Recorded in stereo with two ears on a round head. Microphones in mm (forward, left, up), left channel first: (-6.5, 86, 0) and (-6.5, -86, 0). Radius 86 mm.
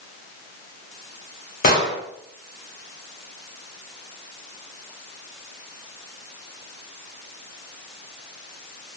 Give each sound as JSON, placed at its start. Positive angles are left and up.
{"t": 1.6, "sound": "an explosion", "side_deg": 45, "distance_m": 1.9}